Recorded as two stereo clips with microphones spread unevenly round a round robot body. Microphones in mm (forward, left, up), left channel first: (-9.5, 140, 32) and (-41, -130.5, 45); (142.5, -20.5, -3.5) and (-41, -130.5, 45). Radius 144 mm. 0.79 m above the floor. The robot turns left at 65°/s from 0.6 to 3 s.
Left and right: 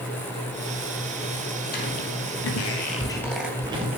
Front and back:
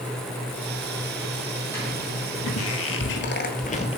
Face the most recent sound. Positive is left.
turn(degrees=-40)